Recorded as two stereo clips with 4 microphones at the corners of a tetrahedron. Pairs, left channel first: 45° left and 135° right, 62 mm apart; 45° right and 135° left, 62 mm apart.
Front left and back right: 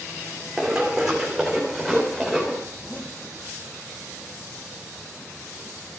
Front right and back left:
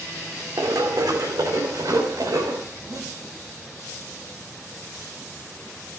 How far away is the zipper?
About 4 m.